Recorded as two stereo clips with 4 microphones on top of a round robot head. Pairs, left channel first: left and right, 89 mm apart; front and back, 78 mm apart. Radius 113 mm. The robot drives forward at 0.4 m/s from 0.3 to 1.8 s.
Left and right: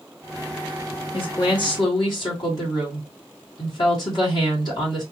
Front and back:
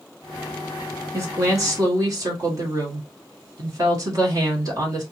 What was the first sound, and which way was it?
A woman speaking, 130° left.